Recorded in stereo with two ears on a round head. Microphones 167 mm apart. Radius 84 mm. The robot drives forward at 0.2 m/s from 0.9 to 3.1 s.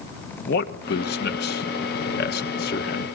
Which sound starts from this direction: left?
A man speaking, at 0.4 s.